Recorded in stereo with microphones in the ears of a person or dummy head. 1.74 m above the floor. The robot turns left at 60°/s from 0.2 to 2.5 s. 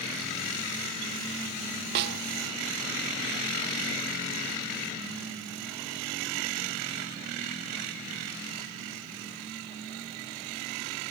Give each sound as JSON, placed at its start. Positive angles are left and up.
{"t": 1.9, "sound": "a snare drum", "side_deg": -60}